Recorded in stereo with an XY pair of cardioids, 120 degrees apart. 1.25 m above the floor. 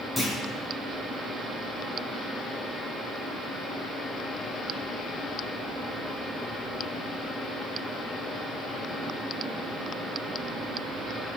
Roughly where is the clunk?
Ahead.